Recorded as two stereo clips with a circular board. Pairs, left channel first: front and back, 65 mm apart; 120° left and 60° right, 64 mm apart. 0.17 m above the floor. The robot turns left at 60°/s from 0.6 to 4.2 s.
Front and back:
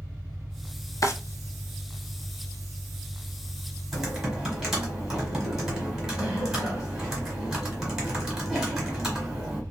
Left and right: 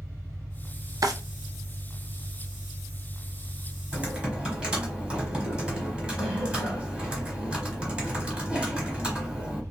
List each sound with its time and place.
0.0 s an engine running: 170° right, 2.5 m; by 9.7 s 25° right, 2.5 m
1.0 s a drawer: 35° right, 0.6 m; by 1.1 s 40° right, 0.6 m
3.9 s typing on a keyboard: 90° right, 1.4 m; by 9.6 s 105° right, 1.4 m